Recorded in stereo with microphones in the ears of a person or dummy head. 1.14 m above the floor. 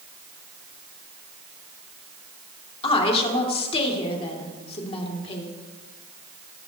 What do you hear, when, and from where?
2.8 s a woman speaking: 30° left (ahead or behind), 2.5 m